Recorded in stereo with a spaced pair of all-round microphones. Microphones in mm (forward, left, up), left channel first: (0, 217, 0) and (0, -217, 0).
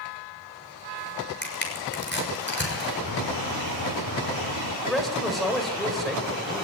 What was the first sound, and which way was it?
Crushing, 25° left (ahead or behind).